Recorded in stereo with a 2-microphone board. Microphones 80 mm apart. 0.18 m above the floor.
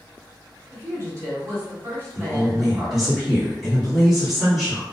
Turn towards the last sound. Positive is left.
turn(degrees=0)  # may be behind; listen again after turning